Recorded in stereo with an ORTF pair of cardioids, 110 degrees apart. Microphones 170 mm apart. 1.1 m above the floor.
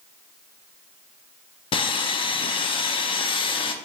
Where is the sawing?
30° left, 0.5 m.